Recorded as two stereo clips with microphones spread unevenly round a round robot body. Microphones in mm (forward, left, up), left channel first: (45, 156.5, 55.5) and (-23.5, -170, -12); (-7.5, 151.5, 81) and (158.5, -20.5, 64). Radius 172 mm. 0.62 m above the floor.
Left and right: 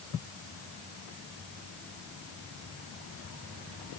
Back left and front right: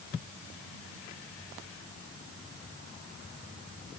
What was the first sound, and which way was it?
Only background noise.